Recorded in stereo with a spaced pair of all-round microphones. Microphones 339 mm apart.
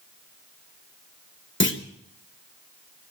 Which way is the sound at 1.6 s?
35° left (ahead or behind).